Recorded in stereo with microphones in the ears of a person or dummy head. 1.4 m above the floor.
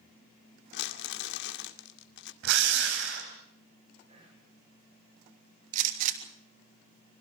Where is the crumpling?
70° left (ahead or behind), 1.9 m.